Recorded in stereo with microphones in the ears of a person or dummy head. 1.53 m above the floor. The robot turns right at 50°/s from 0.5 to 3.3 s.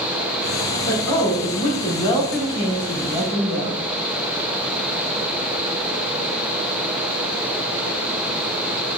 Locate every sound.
0.9 s a woman speaking: 95° left, 2 m; by 3.9 s 140° right, 2 m